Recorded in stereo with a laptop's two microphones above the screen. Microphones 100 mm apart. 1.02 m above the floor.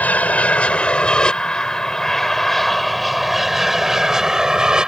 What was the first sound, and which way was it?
An aircraft, 15° left (ahead or behind).